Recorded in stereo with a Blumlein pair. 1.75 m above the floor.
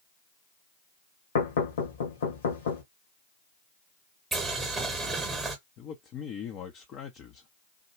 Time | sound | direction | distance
1.4 | knocking | 60° left | 1.4 m
4.3 | boiling | 10° right | 1.1 m
5.8 | a man speaking | 35° left | 0.7 m